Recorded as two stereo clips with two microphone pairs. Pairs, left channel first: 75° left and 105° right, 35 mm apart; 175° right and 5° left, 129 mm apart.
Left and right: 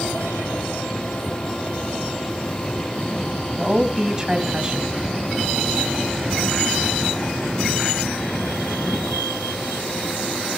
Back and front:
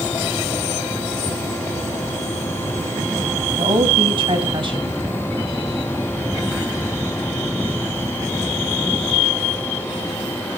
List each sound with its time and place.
3.6 s a woman speaking: 40° right, 2.5 m